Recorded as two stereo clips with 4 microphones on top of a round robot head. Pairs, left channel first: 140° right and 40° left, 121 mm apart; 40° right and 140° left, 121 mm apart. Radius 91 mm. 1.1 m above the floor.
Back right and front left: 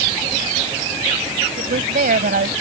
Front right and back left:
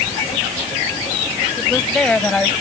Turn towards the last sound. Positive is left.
turn(degrees=40)